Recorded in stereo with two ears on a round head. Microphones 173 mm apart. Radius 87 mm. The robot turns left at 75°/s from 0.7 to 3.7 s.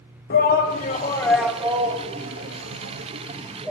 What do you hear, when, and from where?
0.3 s a shout: 50° left (ahead or behind), 1.6 m; by 3.7 s 5° right (ahead or behind), 1.6 m